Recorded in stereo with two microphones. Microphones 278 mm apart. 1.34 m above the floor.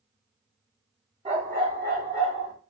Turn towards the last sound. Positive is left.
turn(degrees=-45)  # may be behind; listen again after turning